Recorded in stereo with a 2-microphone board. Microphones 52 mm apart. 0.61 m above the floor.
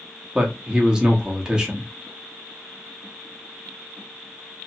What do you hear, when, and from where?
0.3 s a man speaking: 15° right (ahead or behind), 0.8 m